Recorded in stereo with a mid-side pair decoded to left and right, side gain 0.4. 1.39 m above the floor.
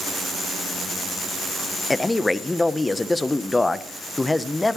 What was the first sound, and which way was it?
A man speaking, 20° left.